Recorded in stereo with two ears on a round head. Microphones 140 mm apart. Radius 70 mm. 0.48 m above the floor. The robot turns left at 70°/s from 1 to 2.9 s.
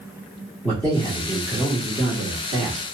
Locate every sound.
0.6 s a man speaking: 10° left (ahead or behind), 1.1 m; by 2.9 s 25° right (ahead or behind), 1.1 m